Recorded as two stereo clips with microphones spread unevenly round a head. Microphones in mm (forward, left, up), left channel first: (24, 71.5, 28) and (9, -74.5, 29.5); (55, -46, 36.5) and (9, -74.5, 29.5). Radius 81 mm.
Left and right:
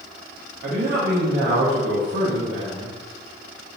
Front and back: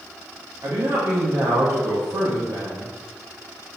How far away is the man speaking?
About 0.8 m.